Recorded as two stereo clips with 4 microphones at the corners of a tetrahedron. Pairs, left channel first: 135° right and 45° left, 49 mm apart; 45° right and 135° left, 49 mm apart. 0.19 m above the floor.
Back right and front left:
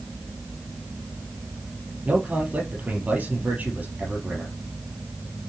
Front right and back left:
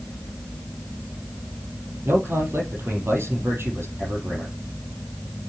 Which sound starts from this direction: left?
A man speaking, at 2.0 s.